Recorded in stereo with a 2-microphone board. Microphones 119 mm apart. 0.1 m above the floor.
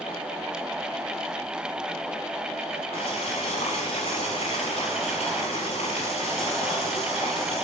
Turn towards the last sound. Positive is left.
turn(degrees=70)  # may be behind; listen again after turning